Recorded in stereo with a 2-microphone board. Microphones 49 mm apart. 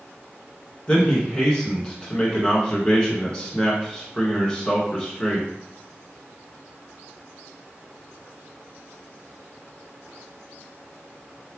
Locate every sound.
0.9 s a man speaking: 20° left (ahead or behind), 1.7 m